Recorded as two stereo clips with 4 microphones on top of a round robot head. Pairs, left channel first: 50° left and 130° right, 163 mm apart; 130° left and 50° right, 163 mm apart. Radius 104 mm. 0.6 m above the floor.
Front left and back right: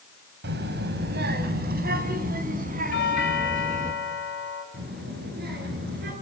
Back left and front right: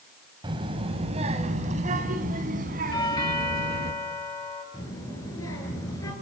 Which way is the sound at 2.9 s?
65° left.